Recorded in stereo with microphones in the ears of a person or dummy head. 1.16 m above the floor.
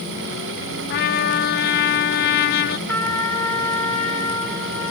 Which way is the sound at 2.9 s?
10° left (ahead or behind).